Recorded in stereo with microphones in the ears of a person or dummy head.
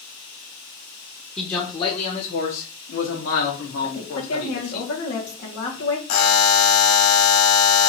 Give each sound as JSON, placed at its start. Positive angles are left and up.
{"t": 1.4, "sound": "a man speaking", "side_deg": 5, "distance_m": 0.8}
{"t": 3.8, "sound": "a woman speaking", "side_deg": 75, "distance_m": 1.6}
{"t": 6.1, "sound": "a buzzer", "side_deg": 60, "distance_m": 0.9}